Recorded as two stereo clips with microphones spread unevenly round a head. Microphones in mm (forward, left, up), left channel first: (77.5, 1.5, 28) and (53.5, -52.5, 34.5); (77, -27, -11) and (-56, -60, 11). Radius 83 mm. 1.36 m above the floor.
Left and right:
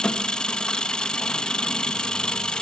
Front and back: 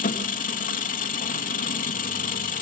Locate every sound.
0.0 s an engine running: 10° right, 1.7 m